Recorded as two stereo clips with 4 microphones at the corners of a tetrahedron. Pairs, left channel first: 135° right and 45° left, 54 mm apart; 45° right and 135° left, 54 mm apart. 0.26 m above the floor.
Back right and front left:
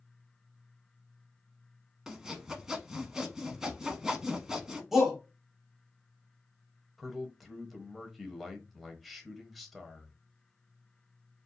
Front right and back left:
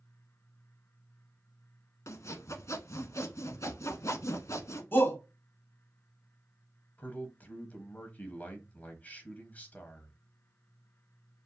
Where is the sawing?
35° right, 0.9 m.